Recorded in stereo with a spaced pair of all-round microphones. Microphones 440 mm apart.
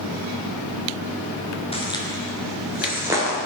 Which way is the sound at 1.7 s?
15° left (ahead or behind).